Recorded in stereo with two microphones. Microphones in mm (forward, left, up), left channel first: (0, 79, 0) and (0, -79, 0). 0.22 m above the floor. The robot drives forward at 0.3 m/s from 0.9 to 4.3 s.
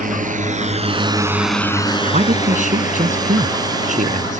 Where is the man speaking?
60° right (ahead or behind).